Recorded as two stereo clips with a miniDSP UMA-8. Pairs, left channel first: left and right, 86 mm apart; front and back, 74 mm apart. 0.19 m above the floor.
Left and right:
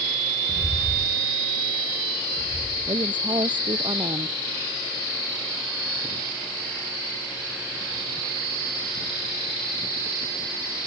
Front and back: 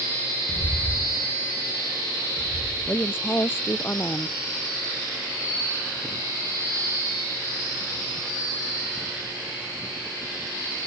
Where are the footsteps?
15° right; by 3.1 s 130° right.